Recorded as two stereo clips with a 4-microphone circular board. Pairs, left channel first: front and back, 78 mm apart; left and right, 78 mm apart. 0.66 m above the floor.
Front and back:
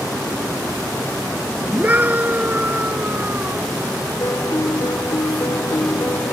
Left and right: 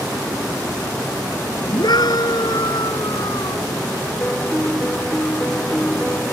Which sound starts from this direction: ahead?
A piano, at 4.2 s.